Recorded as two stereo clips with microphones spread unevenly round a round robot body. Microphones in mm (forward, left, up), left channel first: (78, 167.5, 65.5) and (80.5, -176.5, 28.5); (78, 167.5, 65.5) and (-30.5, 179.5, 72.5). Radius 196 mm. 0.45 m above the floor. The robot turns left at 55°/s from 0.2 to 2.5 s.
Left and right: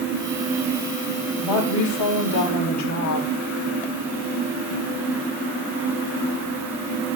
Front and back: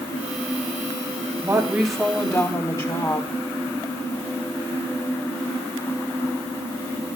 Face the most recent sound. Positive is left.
turn(degrees=50)